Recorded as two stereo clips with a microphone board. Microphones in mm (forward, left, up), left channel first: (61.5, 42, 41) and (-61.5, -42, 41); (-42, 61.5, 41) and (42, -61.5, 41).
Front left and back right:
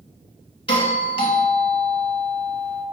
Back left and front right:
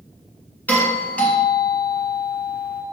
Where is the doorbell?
55° left, 1.9 m.